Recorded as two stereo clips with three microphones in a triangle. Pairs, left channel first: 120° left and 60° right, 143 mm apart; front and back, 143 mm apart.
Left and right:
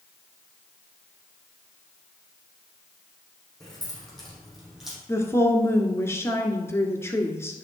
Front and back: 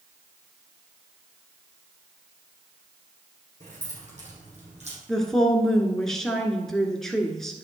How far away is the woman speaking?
About 1.4 m.